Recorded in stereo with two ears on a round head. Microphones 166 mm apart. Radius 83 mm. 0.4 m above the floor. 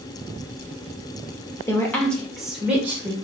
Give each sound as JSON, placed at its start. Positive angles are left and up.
{"t": 1.7, "sound": "a woman speaking", "side_deg": 15, "distance_m": 1.1}